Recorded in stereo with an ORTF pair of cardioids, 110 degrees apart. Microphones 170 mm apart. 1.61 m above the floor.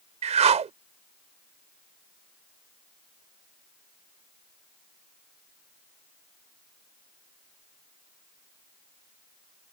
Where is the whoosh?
40° right.